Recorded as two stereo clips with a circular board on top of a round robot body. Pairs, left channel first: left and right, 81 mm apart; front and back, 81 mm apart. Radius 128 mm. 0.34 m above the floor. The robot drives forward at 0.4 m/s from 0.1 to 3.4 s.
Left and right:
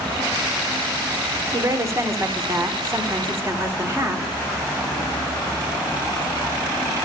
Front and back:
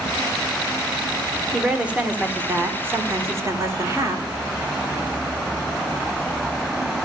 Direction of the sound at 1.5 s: 105° right.